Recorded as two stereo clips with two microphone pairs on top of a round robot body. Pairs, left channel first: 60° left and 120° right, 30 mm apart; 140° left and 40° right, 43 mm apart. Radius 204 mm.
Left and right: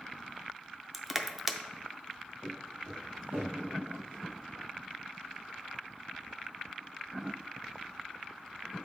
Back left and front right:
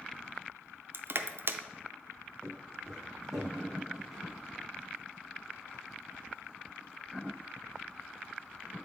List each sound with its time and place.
0.9 s crushing: 35° right, 0.7 m
2.4 s footsteps: 120° right, 3 m; by 4.2 s 125° right, 0.7 m